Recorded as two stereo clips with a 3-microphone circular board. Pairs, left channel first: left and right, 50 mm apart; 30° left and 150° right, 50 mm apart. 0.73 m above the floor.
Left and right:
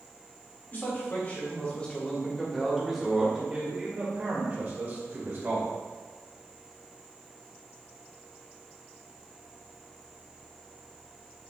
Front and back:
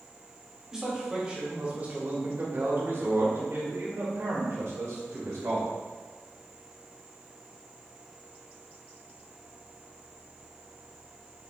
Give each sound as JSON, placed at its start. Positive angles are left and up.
{"t": 0.7, "sound": "a man speaking", "azimuth_deg": 130, "distance_m": 2.5}